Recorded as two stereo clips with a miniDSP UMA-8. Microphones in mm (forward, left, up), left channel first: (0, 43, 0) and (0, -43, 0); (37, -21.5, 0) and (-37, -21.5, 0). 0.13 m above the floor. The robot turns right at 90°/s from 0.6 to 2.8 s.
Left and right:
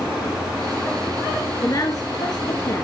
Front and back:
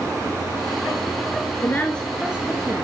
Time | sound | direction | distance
1.6 | a woman speaking | 45° left | 1.8 m